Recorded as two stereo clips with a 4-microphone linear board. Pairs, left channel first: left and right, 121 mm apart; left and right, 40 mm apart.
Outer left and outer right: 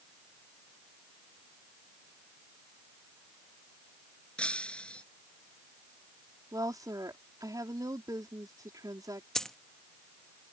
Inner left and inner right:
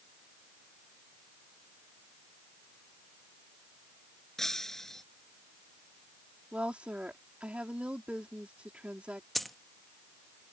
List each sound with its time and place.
4.4 s breaking glass: 10° left (ahead or behind)
6.5 s a woman speaking: 30° right (ahead or behind)
9.3 s a dropped coin: 5° left (ahead or behind)